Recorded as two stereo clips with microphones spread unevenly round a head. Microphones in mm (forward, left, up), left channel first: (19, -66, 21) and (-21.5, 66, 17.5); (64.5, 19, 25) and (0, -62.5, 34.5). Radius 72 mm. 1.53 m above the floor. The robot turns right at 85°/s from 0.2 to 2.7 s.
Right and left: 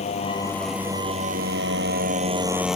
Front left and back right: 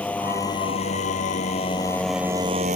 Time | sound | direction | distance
0.0 | a motorcycle | 25° right | ?